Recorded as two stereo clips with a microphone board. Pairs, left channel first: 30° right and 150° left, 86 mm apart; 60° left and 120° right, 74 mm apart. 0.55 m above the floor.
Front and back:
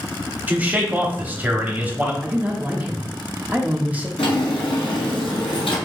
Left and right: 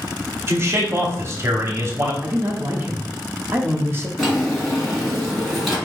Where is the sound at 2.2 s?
150° right, 0.7 m.